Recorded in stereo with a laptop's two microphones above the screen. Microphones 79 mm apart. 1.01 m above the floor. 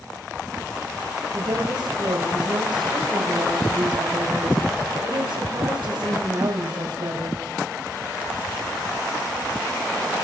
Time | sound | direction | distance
1.3 | a woman speaking | 80° right | 6 m